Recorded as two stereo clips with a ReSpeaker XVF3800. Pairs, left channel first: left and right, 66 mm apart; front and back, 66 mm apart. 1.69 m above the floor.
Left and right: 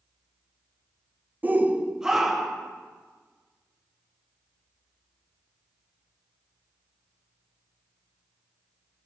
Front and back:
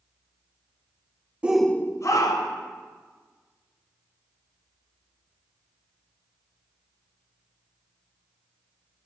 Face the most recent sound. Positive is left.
turn(degrees=5)